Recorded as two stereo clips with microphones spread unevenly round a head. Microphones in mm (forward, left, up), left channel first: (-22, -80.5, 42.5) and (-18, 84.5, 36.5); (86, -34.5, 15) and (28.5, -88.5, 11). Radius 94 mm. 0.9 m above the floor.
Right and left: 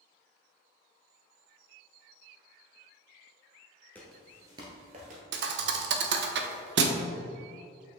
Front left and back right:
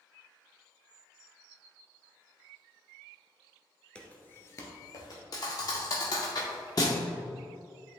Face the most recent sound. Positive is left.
turn(degrees=95)